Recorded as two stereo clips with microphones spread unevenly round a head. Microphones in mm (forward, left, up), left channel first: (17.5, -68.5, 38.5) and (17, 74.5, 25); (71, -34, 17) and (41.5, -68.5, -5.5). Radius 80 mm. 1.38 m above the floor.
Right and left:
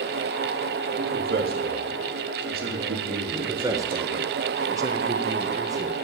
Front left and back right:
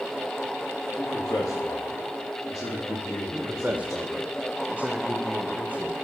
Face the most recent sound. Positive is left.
turn(degrees=160)